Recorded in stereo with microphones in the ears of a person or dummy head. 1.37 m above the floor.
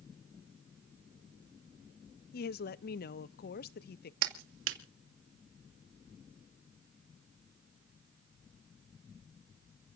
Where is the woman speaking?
50° left (ahead or behind), 0.6 m.